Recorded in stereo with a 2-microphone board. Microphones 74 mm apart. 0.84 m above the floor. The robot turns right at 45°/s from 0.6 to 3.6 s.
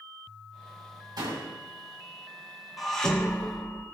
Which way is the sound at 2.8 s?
5° right.